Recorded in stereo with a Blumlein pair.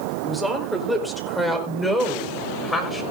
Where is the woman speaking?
5° right, 5 m; by 3.0 s 10° left, 4 m.